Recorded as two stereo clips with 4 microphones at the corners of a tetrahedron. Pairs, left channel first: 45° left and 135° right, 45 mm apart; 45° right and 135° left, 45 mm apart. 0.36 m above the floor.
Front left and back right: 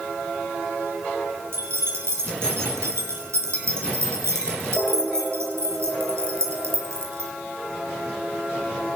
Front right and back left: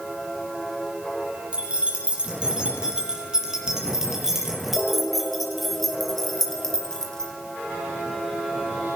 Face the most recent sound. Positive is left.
turn(degrees=-120)